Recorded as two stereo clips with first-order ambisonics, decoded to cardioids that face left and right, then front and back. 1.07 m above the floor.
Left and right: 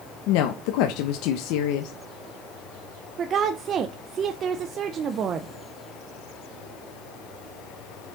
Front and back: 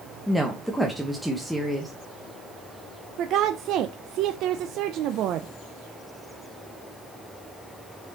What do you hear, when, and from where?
0.3 s a woman speaking: 90° left, 0.9 m
3.2 s a woman speaking: 145° right, 0.5 m